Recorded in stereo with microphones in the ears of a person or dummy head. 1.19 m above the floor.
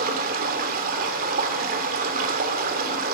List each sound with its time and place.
0.0 s running water: 50° right (ahead or behind), 2 m